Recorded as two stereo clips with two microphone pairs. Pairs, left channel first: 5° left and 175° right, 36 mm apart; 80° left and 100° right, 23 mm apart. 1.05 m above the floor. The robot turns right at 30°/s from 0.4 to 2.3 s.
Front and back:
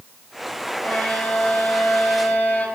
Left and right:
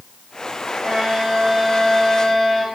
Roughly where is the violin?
Ahead right.